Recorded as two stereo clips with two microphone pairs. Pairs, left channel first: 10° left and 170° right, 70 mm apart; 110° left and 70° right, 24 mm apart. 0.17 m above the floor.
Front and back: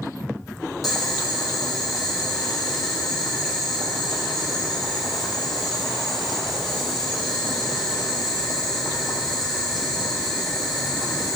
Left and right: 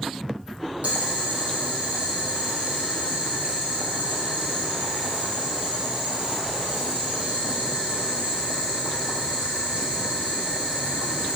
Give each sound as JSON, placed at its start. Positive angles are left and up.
{"t": 0.8, "sound": "boiling", "azimuth_deg": -85, "distance_m": 4.0}